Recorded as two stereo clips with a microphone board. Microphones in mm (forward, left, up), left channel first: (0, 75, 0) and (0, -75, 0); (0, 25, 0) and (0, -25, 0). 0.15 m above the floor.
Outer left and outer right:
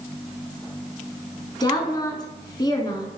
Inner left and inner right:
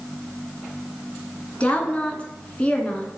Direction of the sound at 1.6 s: 25° left (ahead or behind).